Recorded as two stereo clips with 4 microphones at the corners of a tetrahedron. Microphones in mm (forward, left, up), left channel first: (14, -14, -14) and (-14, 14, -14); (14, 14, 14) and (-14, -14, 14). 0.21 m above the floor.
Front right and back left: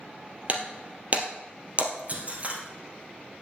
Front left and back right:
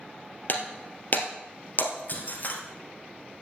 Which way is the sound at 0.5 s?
85° left.